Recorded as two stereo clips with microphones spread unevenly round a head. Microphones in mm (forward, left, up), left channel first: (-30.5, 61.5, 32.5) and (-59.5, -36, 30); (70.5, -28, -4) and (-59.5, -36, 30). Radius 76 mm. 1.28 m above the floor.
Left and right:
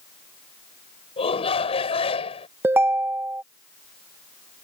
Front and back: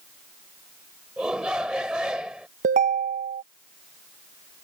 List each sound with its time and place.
1.2 s a shout: 100° left
2.6 s a ringtone: 175° right